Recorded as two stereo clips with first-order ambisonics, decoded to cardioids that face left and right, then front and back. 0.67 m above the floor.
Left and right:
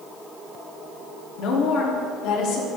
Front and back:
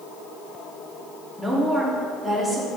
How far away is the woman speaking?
About 1.3 m.